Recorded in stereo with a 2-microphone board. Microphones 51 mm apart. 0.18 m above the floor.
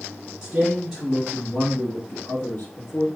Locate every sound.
0.4 s a man speaking: 10° right (ahead or behind), 1.6 m; by 3.1 s 55° left (ahead or behind), 1.6 m